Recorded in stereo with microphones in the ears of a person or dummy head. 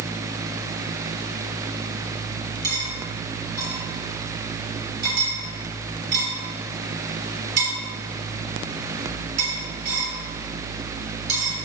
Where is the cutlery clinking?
60° right (ahead or behind), 3 m.